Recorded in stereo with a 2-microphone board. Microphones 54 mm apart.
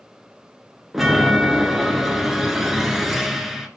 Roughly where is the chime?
Centre.